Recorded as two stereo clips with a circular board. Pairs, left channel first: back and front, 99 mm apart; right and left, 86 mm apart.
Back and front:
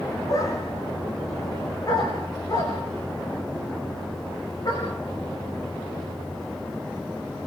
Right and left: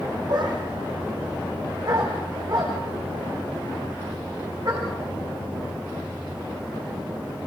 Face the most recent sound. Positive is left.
turn(degrees=135)